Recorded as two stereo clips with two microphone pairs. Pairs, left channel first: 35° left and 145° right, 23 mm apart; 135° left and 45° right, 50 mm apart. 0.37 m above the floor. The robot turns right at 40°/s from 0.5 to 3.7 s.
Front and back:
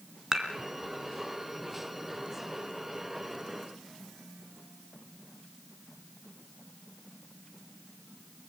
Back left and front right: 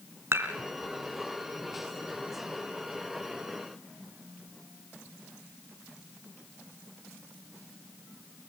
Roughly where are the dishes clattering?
Right.